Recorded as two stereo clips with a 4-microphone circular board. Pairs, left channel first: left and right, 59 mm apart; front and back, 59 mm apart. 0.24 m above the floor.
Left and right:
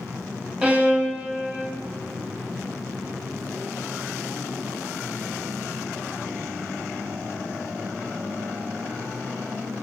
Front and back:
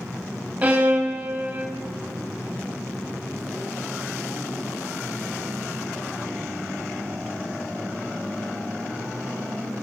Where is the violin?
140° right, 1.3 m.